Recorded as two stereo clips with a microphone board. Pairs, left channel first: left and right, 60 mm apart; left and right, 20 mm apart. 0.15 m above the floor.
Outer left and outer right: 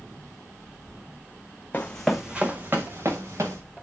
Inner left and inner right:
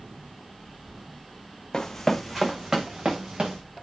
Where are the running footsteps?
25° left (ahead or behind), 0.8 m; by 3.6 s 60° right (ahead or behind), 1.6 m.